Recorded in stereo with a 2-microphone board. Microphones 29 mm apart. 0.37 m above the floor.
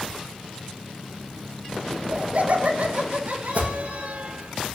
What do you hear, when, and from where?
1.9 s laughter: 50° right (ahead or behind), 6 m; by 4.2 s 65° right (ahead or behind), 6.5 m
3.5 s an alarm: 60° right (ahead or behind), 10 m